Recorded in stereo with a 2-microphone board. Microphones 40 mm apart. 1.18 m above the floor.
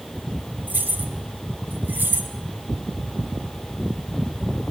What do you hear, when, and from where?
0.7 s keys jangling: 55° right (ahead or behind), 4 m; by 2.3 s 65° right (ahead or behind), 3 m